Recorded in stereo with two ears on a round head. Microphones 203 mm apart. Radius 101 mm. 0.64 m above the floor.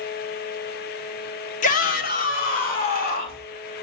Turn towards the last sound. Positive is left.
turn(degrees=40)  # may be behind; listen again after turning